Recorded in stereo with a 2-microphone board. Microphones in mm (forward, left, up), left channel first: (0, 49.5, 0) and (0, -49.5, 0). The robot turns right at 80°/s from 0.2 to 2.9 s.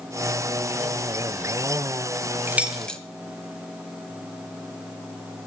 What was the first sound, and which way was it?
Keys jangling, 20° right (ahead or behind).